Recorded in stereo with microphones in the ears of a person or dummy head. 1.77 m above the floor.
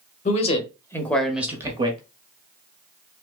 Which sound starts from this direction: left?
A man speaking, at 0.2 s.